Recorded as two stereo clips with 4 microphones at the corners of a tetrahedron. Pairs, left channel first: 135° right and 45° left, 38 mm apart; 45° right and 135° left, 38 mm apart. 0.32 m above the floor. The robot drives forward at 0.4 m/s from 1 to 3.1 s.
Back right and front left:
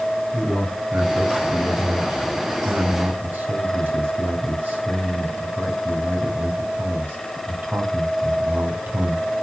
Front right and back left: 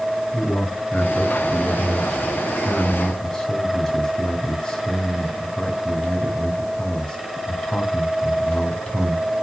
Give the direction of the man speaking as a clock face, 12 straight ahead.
11 o'clock.